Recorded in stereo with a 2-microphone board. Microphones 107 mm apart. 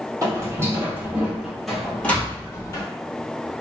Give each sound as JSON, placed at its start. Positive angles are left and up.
{"t": 0.2, "sound": "footsteps", "side_deg": -35, "distance_m": 1.5}